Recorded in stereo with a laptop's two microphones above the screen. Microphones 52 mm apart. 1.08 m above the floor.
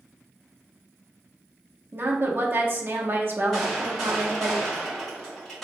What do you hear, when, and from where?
1.9 s a woman speaking: 45° right (ahead or behind), 0.9 m
3.5 s a gunshot: 5° left (ahead or behind), 1.8 m